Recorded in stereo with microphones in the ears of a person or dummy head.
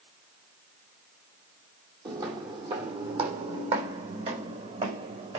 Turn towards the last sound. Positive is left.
turn(degrees=-40)  # may be behind; listen again after turning